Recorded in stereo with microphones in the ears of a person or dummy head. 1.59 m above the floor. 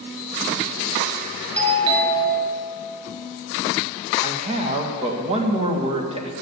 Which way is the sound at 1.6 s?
35° right (ahead or behind).